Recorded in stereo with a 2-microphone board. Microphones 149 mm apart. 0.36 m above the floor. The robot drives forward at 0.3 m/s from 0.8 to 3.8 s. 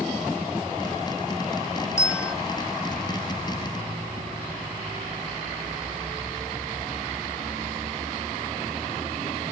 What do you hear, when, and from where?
2.0 s a bell: 20° left (ahead or behind), 1.5 m; by 2.3 s 25° left (ahead or behind), 1.4 m